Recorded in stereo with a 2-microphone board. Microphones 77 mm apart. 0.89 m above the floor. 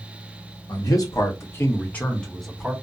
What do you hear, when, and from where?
0.7 s a man speaking: 60° left (ahead or behind), 1.1 m; by 2.7 s 5° right (ahead or behind), 1.1 m